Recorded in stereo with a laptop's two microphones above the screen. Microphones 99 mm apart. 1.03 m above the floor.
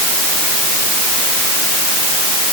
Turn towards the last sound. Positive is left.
No sound to turn to.